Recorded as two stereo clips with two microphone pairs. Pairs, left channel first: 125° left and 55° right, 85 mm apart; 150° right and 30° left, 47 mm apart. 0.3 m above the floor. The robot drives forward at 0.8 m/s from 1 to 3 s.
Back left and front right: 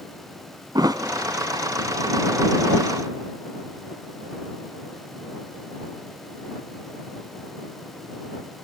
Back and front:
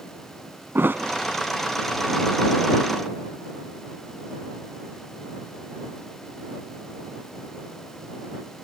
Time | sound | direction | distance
0.8 | a thud | 15° right | 0.9 m